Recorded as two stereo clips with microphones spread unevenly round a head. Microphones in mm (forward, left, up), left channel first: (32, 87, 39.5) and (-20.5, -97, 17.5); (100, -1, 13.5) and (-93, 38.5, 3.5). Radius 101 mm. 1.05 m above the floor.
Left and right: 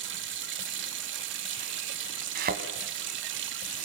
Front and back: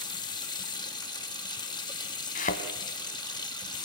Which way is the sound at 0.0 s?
85° right.